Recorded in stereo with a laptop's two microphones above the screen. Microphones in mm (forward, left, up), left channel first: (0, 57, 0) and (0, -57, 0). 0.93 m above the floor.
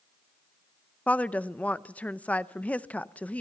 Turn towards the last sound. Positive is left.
turn(degrees=10)  # may be behind; listen again after turning